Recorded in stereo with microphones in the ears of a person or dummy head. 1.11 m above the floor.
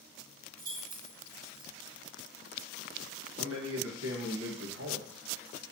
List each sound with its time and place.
0.6 s keys jangling: 50° right (ahead or behind), 1.0 m
3.4 s a man speaking: 80° right, 0.8 m